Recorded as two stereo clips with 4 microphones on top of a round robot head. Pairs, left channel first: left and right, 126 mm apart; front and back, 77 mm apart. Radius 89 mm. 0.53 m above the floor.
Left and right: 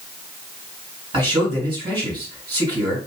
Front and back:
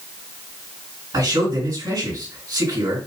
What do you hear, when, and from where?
1.1 s a man speaking: 135° right, 3 m